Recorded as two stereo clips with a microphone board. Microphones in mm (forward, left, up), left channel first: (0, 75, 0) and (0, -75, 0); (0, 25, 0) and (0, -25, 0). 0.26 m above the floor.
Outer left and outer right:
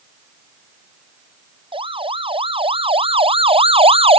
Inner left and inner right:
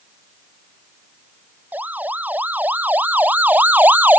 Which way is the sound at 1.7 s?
35° right (ahead or behind).